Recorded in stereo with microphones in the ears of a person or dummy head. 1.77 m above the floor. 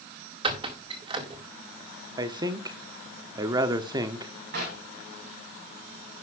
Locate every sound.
0.4 s a squeak: 30° right (ahead or behind), 1.8 m
2.2 s a man speaking: 30° right (ahead or behind), 1.0 m
4.5 s knocking: 65° right (ahead or behind), 5.5 m